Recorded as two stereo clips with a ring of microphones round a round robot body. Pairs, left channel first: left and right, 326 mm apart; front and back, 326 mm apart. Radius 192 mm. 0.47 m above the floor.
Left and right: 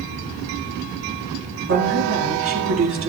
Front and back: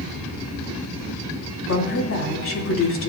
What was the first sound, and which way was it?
A woman speaking, 45° right.